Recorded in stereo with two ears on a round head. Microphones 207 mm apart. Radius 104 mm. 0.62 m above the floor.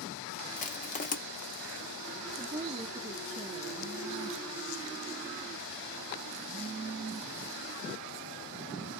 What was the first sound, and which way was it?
Crushing, 35° left (ahead or behind).